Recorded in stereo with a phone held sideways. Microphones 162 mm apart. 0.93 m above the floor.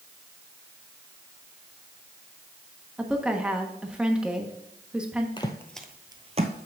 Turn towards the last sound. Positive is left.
turn(degrees=-55)  # may be behind; listen again after turning